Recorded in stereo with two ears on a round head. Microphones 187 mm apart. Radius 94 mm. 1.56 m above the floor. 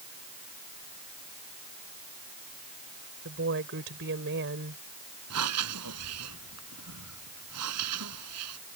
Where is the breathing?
80° right.